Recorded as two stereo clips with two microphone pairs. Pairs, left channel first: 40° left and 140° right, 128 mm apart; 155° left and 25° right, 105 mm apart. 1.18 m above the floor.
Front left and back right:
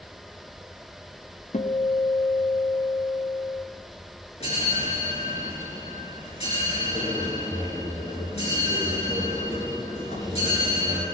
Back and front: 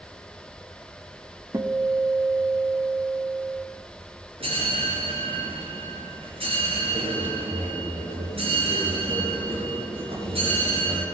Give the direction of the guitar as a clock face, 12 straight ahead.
11 o'clock.